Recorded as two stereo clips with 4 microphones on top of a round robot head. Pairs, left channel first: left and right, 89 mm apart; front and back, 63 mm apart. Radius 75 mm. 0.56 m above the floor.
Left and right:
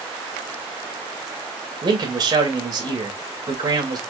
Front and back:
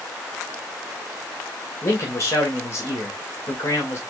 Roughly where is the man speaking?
Ahead right.